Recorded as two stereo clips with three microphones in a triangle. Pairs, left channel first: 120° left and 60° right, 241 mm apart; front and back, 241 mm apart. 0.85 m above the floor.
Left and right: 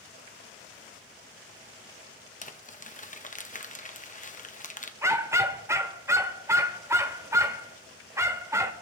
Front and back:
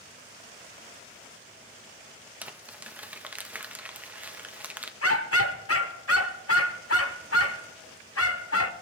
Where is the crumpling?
100° left, 0.9 m.